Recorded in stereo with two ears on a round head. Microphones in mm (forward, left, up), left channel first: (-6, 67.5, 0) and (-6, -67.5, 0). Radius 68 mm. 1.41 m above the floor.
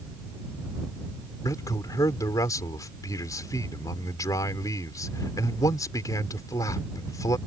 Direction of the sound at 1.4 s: 20° left (ahead or behind).